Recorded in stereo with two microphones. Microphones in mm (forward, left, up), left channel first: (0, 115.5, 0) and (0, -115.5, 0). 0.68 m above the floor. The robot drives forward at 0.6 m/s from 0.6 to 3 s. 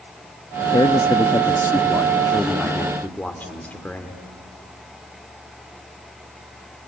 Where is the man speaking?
20° left (ahead or behind), 0.5 m; by 4.2 s 5° left (ahead or behind), 1.5 m.